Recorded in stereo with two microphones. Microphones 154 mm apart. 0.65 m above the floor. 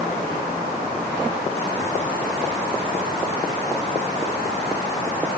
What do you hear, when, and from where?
Only background noise.